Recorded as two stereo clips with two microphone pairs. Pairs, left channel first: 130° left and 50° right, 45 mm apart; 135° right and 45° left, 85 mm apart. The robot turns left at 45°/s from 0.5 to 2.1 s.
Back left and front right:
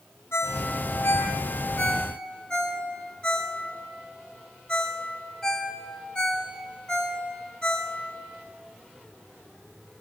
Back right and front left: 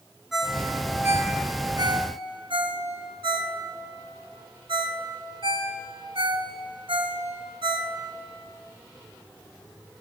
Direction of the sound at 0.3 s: 130° left.